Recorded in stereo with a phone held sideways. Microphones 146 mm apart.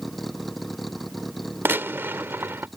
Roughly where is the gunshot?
Centre.